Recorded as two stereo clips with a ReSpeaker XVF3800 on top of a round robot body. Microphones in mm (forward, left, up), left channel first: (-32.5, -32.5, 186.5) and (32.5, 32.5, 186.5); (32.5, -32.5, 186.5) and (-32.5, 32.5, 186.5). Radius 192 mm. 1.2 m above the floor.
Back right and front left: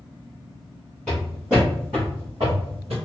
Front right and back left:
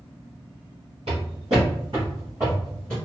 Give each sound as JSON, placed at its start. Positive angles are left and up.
{"t": 1.1, "sound": "footsteps", "azimuth_deg": 145, "distance_m": 1.4}